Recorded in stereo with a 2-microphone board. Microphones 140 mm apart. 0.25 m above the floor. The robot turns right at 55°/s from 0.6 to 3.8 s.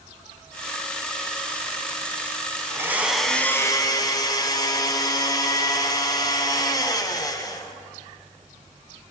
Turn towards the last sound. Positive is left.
turn(degrees=35)